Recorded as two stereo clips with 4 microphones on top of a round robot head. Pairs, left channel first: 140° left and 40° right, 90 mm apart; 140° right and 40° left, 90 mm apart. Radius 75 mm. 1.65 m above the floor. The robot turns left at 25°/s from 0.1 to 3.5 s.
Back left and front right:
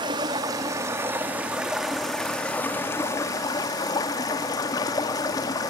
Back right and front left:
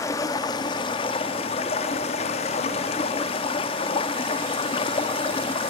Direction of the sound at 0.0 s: 80° right.